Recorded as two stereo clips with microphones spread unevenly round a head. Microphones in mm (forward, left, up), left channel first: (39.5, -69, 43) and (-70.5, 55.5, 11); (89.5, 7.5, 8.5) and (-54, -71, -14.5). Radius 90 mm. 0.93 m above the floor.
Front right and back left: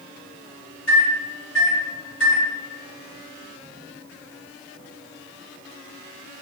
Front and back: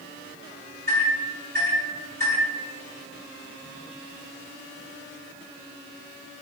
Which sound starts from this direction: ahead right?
A microwave, at 0.9 s.